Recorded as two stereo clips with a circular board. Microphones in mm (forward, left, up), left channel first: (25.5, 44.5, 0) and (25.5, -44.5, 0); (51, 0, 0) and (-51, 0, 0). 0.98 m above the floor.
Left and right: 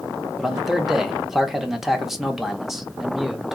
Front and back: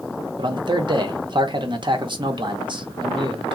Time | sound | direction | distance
0.4 | a man speaking | 175° right | 0.8 m